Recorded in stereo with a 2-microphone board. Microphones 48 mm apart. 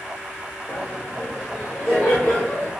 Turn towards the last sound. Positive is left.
turn(degrees=25)  # may be behind; listen again after turning